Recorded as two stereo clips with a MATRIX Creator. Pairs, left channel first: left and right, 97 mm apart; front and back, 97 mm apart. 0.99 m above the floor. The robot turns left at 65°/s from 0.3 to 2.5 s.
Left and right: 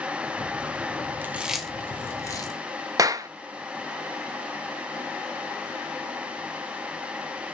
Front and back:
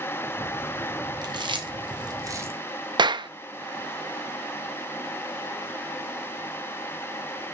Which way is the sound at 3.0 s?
140° right.